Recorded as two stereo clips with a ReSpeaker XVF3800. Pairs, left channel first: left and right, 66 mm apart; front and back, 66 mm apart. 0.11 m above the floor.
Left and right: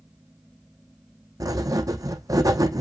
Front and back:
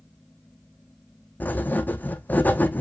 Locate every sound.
1.4 s writing: 65° right, 0.9 m